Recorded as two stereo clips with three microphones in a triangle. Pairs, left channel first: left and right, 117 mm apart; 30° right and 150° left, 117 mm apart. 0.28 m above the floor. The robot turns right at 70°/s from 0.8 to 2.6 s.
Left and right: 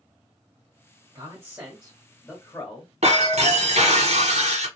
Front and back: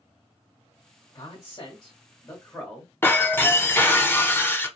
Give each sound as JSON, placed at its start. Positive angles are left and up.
{"t": 1.1, "sound": "a man speaking", "azimuth_deg": -60, "distance_m": 1.2}
{"t": 3.0, "sound": "breaking glass", "azimuth_deg": -100, "distance_m": 0.8}